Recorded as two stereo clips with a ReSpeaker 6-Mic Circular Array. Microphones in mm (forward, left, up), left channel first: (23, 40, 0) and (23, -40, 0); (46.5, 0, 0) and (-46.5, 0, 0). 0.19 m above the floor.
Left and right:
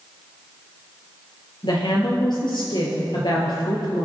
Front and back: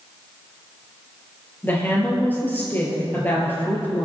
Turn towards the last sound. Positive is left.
turn(degrees=65)